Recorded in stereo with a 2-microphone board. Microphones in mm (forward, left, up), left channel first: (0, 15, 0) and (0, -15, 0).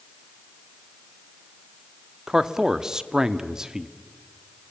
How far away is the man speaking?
About 0.8 m.